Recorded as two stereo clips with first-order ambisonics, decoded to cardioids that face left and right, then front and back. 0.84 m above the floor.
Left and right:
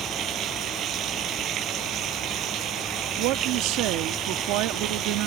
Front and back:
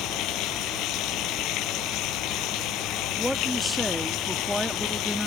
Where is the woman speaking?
90° right.